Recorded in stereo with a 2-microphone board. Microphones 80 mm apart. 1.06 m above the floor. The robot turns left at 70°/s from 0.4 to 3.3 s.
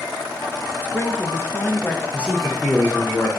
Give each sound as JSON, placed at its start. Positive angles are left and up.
{"t": 0.8, "sound": "a woman speaking", "side_deg": 25, "distance_m": 0.5}
{"t": 2.1, "sound": "a man speaking", "azimuth_deg": -160, "distance_m": 0.7}